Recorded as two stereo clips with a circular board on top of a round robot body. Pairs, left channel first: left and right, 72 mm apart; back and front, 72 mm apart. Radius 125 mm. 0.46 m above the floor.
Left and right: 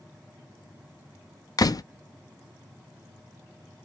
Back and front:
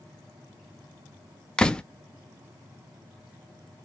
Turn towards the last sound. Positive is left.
turn(degrees=100)